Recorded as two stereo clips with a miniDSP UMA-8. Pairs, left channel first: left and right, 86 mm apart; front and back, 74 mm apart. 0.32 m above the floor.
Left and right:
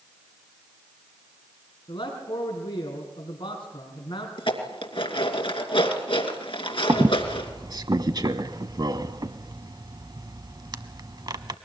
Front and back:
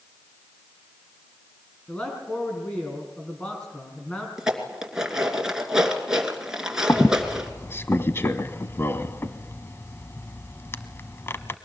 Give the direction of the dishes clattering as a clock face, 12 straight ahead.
9 o'clock.